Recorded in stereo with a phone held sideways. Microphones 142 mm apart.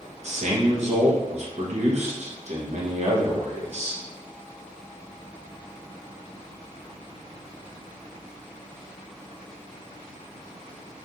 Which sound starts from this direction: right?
A man speaking, at 0.2 s.